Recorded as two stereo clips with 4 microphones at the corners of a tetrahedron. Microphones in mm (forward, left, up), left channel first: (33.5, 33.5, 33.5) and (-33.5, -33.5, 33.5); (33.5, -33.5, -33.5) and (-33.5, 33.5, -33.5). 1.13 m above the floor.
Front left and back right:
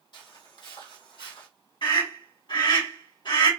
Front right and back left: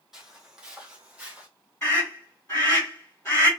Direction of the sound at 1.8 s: 30° left.